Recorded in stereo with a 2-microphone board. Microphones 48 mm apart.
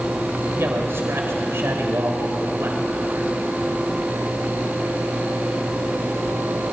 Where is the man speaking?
65° right (ahead or behind), 3.5 m.